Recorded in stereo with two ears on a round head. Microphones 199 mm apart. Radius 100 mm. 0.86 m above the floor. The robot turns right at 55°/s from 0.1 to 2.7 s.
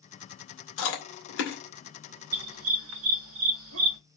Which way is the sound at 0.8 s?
85° left.